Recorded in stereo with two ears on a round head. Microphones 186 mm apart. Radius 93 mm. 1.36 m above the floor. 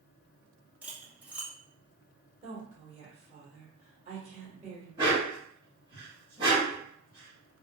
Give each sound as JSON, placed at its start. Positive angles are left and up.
{"t": 0.8, "sound": "cutlery clinking", "side_deg": -5, "distance_m": 0.6}
{"t": 2.4, "sound": "a woman speaking", "side_deg": -30, "distance_m": 1.3}
{"t": 5.0, "sound": "a dog barking", "side_deg": -25, "distance_m": 1.9}